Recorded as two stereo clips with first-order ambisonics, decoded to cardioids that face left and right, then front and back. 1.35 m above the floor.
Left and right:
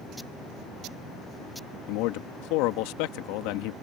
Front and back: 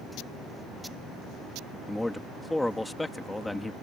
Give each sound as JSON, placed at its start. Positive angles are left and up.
{"t": 1.9, "sound": "a man speaking", "azimuth_deg": 85}